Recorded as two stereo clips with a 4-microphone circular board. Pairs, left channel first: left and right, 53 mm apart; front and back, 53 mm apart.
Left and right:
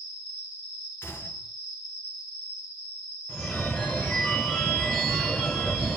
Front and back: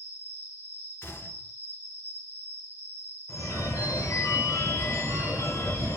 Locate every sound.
0.0 s an insect: 30° right, 1.5 m
1.0 s a gunshot: 40° left, 0.6 m
3.3 s a phone ringing: 15° left, 1.1 m